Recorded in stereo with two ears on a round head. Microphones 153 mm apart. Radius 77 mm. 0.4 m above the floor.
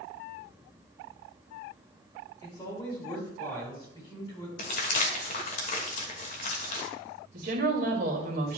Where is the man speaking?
30° left (ahead or behind), 4 m.